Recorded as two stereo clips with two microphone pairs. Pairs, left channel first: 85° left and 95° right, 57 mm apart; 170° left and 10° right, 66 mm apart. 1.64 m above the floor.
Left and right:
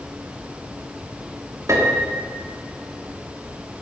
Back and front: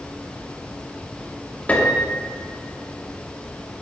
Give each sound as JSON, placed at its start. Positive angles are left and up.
{"t": 1.7, "sound": "a piano", "azimuth_deg": -120, "distance_m": 3.0}